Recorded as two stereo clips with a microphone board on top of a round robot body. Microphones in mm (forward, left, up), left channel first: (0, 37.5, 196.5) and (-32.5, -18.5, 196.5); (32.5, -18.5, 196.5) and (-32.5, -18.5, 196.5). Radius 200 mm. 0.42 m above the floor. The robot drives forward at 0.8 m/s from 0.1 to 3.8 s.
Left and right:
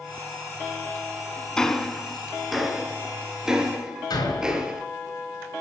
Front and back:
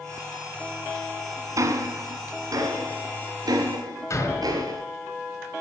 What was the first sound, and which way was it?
Ticking, 140° left.